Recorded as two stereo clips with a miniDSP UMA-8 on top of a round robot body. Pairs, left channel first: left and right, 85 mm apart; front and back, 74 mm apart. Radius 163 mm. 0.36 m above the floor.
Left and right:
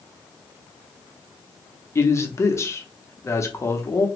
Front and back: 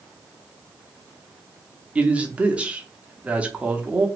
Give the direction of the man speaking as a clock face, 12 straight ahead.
8 o'clock.